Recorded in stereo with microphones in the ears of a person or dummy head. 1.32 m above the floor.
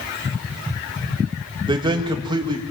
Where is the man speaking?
20° right (ahead or behind), 2 m.